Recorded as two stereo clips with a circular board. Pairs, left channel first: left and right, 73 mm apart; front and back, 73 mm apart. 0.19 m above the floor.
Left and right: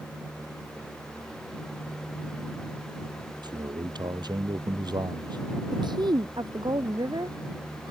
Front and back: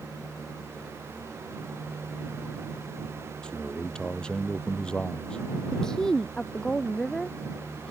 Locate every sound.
3.4 s a man speaking: 80° right
5.7 s a woman speaking: 80° right